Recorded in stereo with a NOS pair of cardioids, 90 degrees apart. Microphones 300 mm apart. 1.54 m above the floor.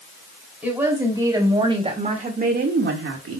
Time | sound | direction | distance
0.6 | a woman speaking | 5° right | 4 m